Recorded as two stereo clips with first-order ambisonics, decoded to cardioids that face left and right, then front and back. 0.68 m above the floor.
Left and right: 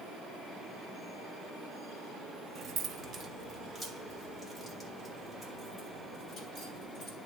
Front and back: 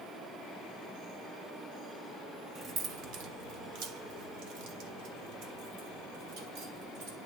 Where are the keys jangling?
115° right, 0.7 m; by 7.2 s 170° left, 3 m.